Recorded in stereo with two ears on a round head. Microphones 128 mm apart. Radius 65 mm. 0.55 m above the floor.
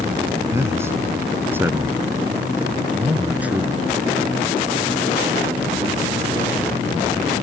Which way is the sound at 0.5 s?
20° right (ahead or behind).